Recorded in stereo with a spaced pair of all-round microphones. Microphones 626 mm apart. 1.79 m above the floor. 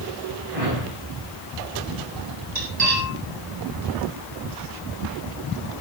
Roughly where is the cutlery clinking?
Right.